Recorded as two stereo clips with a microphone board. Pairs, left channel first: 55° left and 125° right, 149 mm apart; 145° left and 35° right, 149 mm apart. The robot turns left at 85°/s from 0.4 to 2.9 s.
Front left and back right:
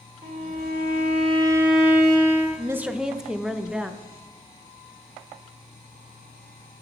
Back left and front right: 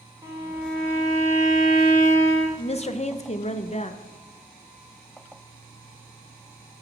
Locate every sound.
0.2 s a violin: 100° right, 1.7 m; by 2.5 s 85° left, 1.7 m
2.6 s a woman speaking: straight behind, 0.5 m; by 4.0 s 150° left, 0.5 m